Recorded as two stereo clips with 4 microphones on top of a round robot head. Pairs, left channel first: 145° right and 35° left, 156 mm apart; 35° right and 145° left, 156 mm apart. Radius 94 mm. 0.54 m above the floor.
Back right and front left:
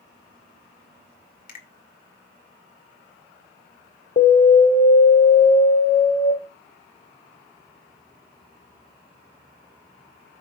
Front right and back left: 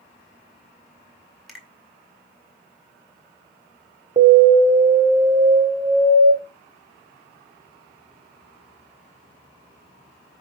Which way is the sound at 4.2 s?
170° right.